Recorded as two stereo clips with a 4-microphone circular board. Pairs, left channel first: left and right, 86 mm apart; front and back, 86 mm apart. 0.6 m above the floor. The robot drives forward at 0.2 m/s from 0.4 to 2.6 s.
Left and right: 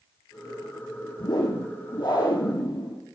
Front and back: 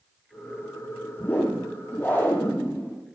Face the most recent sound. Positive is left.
turn(degrees=70)